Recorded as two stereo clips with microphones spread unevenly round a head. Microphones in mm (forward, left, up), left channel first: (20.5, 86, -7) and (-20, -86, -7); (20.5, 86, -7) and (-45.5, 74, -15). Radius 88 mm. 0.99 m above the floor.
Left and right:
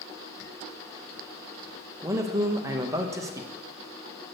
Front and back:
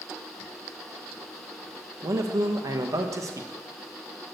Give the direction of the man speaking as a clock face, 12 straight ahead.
6 o'clock.